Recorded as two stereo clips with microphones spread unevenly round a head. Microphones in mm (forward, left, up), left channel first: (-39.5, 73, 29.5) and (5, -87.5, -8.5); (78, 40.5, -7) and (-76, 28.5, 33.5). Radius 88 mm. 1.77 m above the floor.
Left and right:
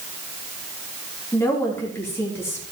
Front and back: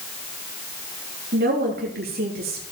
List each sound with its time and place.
1.3 s a woman speaking: straight behind, 3.5 m